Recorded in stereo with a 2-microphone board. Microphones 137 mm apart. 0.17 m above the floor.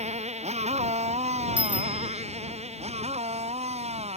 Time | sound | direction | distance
0.0 | a motorcycle | 55° right (ahead or behind) | ?
1.6 | a bicycle bell | 10° right (ahead or behind) | ?